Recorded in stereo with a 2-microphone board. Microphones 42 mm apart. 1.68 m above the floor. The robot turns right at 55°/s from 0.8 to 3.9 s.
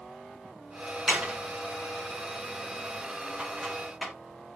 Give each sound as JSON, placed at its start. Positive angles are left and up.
{"t": 1.1, "sound": "a door slam", "side_deg": -25, "distance_m": 2.0}